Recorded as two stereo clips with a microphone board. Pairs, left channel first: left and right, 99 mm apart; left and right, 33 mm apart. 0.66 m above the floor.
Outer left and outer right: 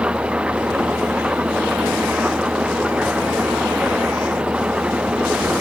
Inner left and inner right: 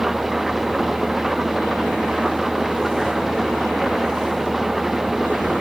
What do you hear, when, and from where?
0.0 s an engine running: 10° right (ahead or behind)